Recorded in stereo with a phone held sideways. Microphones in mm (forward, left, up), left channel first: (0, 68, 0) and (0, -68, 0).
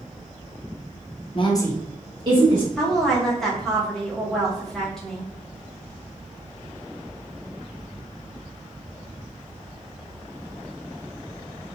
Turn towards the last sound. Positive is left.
turn(degrees=5)  # may be behind; listen again after turning